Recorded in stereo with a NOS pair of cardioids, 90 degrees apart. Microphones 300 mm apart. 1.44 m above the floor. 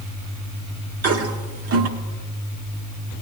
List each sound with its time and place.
1.0 s a toilet flushing: 55° right, 1.2 m